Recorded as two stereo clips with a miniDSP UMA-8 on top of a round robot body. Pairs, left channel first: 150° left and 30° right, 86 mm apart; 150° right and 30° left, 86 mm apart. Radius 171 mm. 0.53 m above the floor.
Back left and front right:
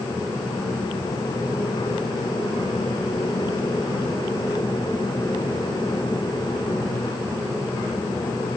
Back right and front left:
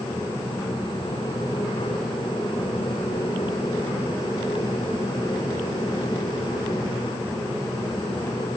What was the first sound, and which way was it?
Only background noise.